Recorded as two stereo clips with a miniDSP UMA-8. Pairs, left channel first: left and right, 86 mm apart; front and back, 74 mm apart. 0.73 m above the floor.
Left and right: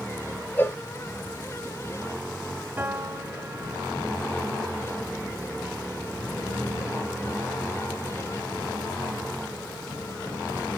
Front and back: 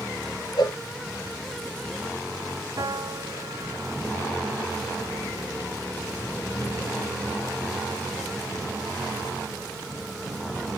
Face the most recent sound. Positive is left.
turn(degrees=-155)